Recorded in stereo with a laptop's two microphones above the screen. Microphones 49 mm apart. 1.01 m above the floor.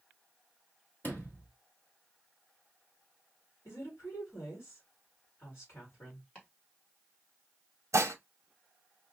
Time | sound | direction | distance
1.0 | a sliding door | 40° left (ahead or behind) | 1.2 m
3.6 | a woman speaking | 50° left (ahead or behind) | 1.8 m
6.3 | chopping | 30° left (ahead or behind) | 1.6 m
7.9 | dishes clattering | 80° right | 0.7 m